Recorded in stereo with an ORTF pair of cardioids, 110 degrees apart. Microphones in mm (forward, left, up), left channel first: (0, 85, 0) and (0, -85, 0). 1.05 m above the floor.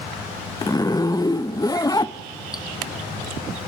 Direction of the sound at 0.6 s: 20° left.